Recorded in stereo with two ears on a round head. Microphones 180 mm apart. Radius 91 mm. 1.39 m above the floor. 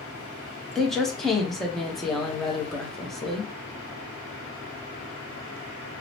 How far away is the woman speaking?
About 0.8 m.